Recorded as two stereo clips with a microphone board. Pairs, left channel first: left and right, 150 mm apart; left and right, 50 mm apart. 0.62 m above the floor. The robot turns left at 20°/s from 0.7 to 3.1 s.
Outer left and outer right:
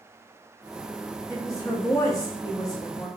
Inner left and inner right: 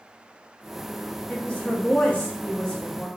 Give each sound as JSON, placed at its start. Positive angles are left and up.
{"t": 1.3, "sound": "a woman speaking", "side_deg": 20, "distance_m": 0.5}